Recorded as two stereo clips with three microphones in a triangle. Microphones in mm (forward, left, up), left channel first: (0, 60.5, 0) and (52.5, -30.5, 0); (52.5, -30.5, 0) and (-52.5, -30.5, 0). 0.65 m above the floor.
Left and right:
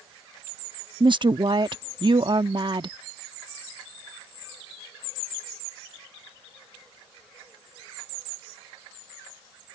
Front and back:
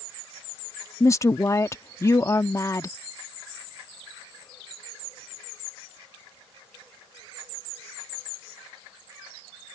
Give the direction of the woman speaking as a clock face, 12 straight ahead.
2 o'clock.